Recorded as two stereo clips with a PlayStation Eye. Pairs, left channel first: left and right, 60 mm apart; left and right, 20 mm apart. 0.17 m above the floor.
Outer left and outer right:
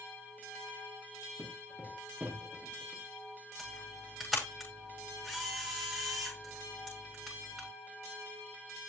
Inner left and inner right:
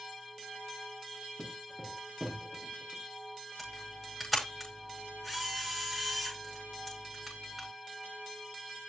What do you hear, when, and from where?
1.4 s footsteps: 35° right (ahead or behind), 3 m; by 3.0 s centre (ahead or behind), 4 m
3.6 s a camera shutter: 5° right (ahead or behind), 9.5 m